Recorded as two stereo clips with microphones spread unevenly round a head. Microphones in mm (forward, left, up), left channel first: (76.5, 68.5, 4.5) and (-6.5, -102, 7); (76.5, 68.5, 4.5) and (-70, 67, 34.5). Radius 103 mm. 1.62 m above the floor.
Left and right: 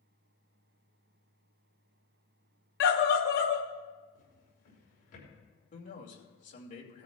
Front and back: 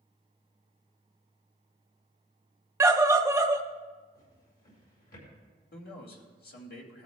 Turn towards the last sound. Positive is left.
turn(degrees=15)